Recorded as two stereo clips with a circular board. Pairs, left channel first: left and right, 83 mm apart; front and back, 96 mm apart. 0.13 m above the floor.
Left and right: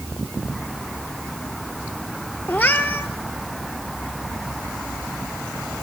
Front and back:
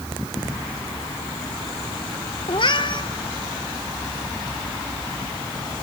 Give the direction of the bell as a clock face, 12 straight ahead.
No bell in this recording.